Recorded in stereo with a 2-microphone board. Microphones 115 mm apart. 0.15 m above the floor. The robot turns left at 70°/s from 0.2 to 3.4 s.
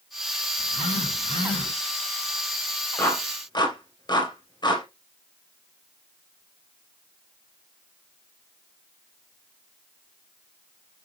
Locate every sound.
0.6 s a phone buzzing: 105° left, 2.5 m; by 1.7 s 25° left, 2.5 m
3.0 s a clap: 15° left (ahead or behind), 2.5 m; by 4.8 s 40° left (ahead or behind), 2.5 m